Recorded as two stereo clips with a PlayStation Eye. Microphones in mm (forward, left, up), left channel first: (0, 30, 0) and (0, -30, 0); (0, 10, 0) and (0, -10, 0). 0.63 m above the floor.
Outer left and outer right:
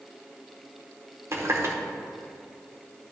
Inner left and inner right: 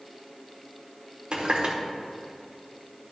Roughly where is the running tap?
Right.